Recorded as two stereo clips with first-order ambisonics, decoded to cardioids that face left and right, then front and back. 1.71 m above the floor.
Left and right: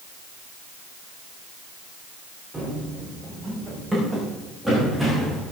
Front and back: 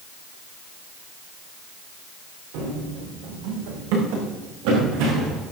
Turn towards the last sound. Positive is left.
turn(degrees=180)